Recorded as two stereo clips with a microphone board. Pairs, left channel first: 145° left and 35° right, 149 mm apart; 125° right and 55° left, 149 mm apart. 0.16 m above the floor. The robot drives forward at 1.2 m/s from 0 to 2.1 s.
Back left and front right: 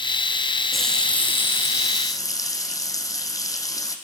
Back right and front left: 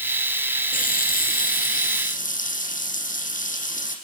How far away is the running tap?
About 2.5 m.